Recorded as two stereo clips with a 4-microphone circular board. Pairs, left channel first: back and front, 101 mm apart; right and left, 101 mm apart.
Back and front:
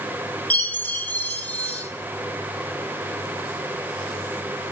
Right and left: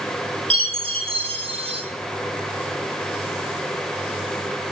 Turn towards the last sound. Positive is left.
turn(degrees=105)